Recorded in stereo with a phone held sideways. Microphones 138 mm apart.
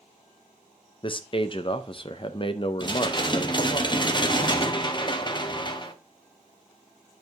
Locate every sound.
1.0 s a man speaking: 40° left (ahead or behind), 0.5 m
2.8 s dishes clattering: 35° left (ahead or behind), 0.8 m